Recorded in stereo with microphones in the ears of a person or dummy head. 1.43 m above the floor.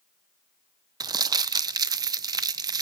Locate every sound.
1.0 s crumpling: 20° right (ahead or behind), 0.5 m